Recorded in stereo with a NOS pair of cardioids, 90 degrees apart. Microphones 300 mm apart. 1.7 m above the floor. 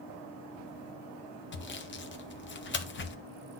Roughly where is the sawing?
Ahead left.